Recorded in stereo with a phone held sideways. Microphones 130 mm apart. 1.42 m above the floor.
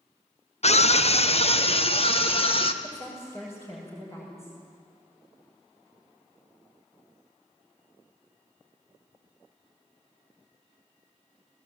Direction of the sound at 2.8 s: 25° left (ahead or behind).